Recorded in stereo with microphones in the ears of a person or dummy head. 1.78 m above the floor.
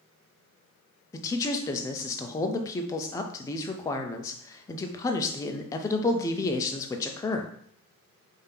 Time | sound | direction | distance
1.1 | a man speaking | 20° left (ahead or behind) | 0.5 m